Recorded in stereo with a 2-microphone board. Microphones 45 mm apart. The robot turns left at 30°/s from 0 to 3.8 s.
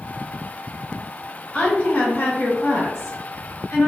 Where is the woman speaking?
155° left, 1.4 m; by 3.9 s 90° left, 1.4 m.